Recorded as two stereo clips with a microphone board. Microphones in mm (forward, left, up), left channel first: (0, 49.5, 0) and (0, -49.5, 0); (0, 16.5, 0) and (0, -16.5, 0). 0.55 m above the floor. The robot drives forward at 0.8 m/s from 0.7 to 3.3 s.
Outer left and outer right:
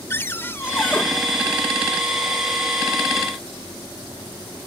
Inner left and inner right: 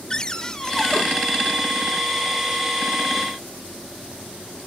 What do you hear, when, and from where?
0.1 s a cupboard door: 25° left (ahead or behind), 0.9 m; by 1.0 s 20° left (ahead or behind), 1.2 m